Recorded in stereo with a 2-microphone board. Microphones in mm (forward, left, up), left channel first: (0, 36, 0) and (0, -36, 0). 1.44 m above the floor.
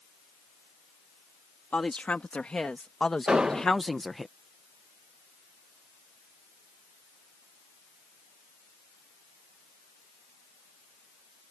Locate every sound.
1.7 s a woman speaking: 20° left (ahead or behind); by 4.3 s centre (ahead or behind)
3.3 s an explosion: 10° right (ahead or behind)